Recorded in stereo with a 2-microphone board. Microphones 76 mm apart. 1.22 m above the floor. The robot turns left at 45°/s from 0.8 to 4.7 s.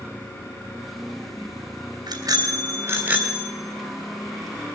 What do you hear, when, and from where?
2.1 s a bicycle bell: 110° right, 2.5 m; by 3.5 s 175° right, 2.5 m